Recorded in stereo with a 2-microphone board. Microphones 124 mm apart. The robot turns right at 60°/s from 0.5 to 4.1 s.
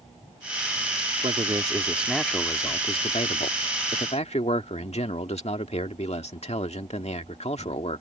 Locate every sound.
1.2 s a man speaking: 55° right; by 8.0 s 120° left